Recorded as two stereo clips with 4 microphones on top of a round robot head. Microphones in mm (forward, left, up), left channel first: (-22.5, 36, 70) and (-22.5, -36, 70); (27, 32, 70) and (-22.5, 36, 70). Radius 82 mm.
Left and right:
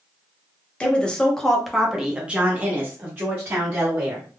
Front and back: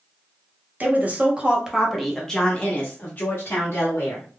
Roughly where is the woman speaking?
Behind left.